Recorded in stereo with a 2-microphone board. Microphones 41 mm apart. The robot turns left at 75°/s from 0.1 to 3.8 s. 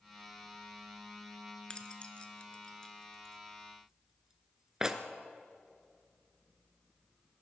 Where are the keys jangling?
20° left (ahead or behind), 0.9 m; by 5.0 s 15° right (ahead or behind), 0.9 m.